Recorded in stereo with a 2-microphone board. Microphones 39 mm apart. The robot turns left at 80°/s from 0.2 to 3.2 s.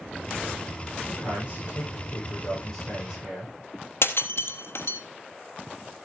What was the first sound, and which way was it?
A man speaking, 145° left.